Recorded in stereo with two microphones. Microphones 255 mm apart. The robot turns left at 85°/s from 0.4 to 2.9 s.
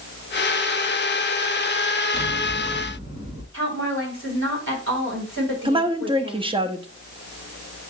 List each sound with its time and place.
2.1 s scissors: 40° left, 2.5 m; by 3.4 s 25° right, 2.5 m
3.5 s a woman speaking: 50° right (ahead or behind), 4 m
5.7 s a woman speaking: 20° right (ahead or behind), 0.8 m